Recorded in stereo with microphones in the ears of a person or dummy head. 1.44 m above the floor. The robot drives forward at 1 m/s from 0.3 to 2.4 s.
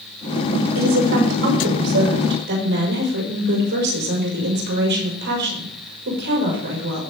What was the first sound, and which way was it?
A woman speaking, 75° right (ahead or behind).